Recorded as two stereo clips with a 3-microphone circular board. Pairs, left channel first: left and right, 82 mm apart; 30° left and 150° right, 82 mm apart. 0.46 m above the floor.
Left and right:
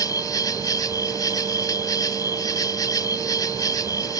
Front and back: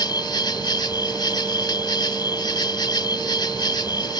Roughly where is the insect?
Ahead left.